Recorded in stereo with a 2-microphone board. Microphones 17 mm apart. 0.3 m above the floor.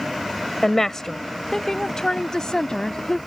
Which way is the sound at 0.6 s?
30° left (ahead or behind).